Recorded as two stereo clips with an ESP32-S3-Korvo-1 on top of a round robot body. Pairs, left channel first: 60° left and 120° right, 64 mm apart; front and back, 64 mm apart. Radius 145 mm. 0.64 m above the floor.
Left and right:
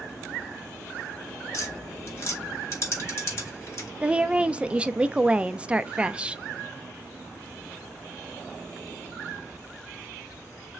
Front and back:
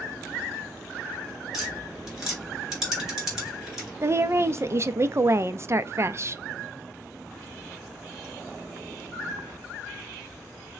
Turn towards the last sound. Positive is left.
turn(degrees=175)